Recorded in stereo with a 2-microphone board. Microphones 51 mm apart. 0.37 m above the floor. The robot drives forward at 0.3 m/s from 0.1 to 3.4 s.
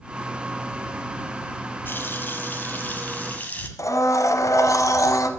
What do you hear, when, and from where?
1.9 s a running tap: 40° left (ahead or behind), 1.2 m; by 3.7 s 30° left (ahead or behind), 1.5 m
3.8 s a blender: 80° left, 1.2 m